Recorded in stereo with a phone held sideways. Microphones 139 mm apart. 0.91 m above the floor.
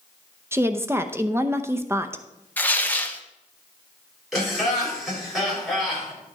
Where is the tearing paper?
10° left (ahead or behind), 0.8 m.